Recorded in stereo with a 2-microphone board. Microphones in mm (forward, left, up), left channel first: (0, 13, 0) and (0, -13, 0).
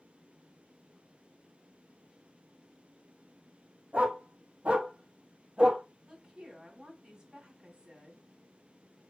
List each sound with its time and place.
3.9 s a dog barking: 75° right (ahead or behind), 3 m; by 5.8 s 35° right (ahead or behind), 2 m
6.1 s a woman speaking: 30° right (ahead or behind), 3 m